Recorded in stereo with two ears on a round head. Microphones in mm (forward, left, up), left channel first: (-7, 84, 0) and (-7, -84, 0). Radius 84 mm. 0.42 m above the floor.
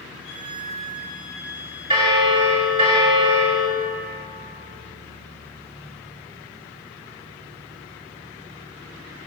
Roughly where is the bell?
Right.